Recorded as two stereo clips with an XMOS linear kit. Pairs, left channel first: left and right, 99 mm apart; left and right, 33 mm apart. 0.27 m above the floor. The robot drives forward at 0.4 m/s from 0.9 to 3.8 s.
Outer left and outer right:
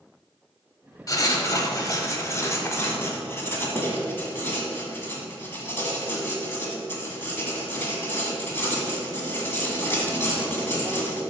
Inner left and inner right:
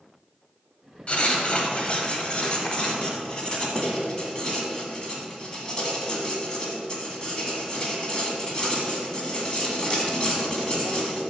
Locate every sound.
1.1 s writing: 40° left (ahead or behind), 1.0 m; by 11.2 s 25° left (ahead or behind), 1.5 m